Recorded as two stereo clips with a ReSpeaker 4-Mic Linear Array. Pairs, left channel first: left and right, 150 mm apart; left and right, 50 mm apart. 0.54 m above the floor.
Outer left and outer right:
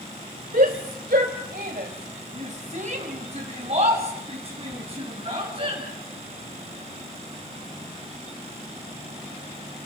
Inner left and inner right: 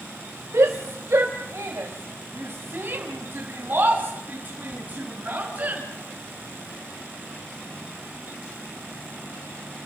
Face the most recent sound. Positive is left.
turn(degrees=-35)  # may be behind; listen again after turning